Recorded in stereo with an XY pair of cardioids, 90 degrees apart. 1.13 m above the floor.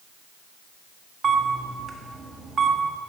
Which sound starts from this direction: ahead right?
A camera shutter, at 1.2 s.